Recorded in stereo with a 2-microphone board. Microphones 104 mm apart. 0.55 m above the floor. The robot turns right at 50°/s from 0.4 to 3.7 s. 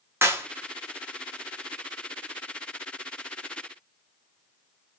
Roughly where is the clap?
Right.